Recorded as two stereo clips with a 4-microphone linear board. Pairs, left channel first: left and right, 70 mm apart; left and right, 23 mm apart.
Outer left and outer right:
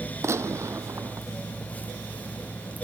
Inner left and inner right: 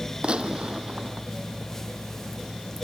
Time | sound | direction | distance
0.2 | a gunshot | 40° right (ahead or behind) | ?